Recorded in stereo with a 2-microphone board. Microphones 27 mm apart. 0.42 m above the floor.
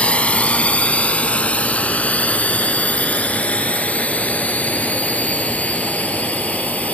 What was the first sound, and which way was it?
A drone, 55° left (ahead or behind).